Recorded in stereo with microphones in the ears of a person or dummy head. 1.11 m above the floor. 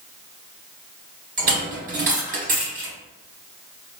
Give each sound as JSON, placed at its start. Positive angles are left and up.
{"t": 1.4, "sound": "a dropped coin", "side_deg": -45, "distance_m": 2.0}